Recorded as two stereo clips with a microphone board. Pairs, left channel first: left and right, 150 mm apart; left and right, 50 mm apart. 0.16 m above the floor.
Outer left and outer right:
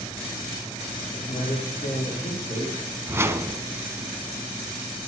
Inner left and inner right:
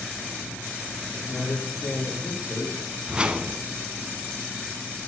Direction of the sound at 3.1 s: 15° right (ahead or behind).